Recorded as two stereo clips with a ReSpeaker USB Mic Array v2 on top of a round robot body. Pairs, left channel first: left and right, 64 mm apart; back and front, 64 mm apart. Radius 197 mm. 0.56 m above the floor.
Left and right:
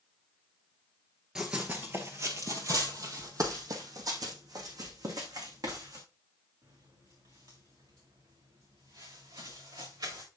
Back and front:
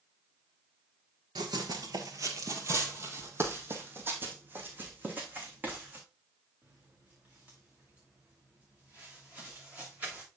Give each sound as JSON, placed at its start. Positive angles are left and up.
{"t": 1.4, "sound": "running footsteps", "azimuth_deg": -10, "distance_m": 0.8}